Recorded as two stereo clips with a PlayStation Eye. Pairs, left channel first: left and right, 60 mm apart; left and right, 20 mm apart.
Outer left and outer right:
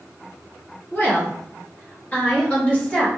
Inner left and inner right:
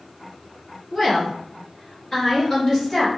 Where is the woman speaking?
30° left (ahead or behind), 1.4 m; by 3.1 s 15° left (ahead or behind), 1.6 m.